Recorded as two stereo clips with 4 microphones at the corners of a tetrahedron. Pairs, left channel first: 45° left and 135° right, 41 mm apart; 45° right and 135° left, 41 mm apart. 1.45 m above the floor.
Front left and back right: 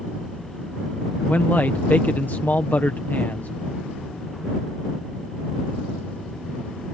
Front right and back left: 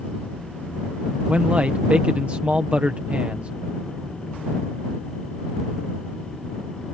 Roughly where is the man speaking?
Left.